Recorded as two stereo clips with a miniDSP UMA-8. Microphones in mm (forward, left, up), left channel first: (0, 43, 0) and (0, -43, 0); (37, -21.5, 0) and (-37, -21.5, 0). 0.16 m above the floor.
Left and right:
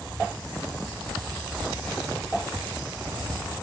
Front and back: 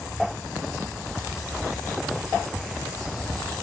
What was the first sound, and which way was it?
Only background noise.